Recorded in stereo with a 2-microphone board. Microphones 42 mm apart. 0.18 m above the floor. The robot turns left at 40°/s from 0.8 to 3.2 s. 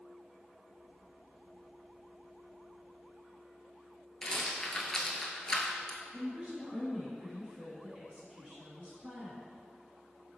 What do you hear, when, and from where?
4.2 s a rattle: 15° left (ahead or behind), 0.5 m
6.1 s a woman speaking: 25° right (ahead or behind), 1.2 m